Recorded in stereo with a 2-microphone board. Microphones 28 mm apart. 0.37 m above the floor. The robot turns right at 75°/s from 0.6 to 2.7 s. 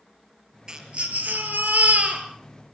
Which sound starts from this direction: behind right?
A baby crying, at 0.7 s.